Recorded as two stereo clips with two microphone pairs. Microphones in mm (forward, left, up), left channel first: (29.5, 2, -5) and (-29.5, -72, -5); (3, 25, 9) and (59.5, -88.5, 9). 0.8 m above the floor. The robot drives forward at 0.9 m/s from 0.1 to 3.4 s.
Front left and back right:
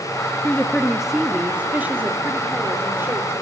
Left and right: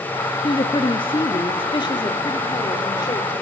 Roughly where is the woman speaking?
Behind left.